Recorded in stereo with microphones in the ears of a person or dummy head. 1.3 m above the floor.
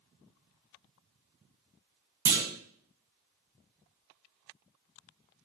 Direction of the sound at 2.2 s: 15° right (ahead or behind).